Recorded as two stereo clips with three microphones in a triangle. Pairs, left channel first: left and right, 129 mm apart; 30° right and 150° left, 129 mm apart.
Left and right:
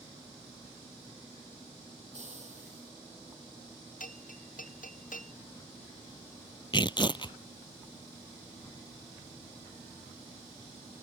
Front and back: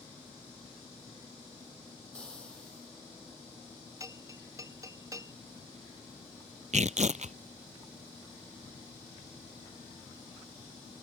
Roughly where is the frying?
Right.